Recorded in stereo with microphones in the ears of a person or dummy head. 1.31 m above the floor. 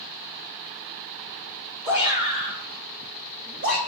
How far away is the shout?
About 2.5 m.